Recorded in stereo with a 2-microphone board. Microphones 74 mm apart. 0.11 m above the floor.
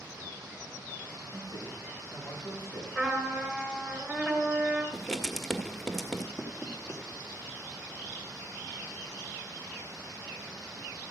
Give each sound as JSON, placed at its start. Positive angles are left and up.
{"t": 1.3, "sound": "a man speaking", "side_deg": 55, "distance_m": 8.5}
{"t": 3.0, "sound": "a trumpet", "side_deg": 5, "distance_m": 2.0}
{"t": 4.9, "sound": "writing", "side_deg": 5, "distance_m": 1.0}
{"t": 6.4, "sound": "knocking", "side_deg": 40, "distance_m": 3.5}